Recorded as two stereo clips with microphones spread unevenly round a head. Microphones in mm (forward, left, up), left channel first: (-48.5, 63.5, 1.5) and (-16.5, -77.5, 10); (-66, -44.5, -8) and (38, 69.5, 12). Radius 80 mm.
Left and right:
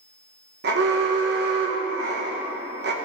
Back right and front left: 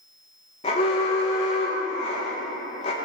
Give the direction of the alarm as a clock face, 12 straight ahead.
3 o'clock.